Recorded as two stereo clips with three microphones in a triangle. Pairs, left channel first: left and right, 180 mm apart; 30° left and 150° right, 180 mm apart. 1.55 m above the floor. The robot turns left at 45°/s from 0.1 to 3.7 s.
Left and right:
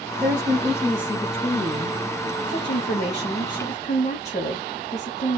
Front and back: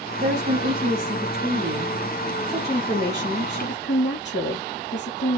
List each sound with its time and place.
0.2 s a woman speaking: 165° right, 2.5 m; by 5.4 s 35° left, 2.5 m